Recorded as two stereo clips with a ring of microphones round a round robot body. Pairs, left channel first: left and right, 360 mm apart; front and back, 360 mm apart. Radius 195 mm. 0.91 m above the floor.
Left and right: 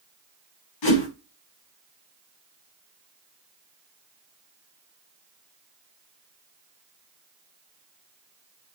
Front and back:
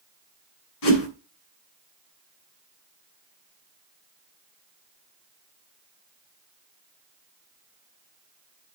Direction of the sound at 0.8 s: 50° left.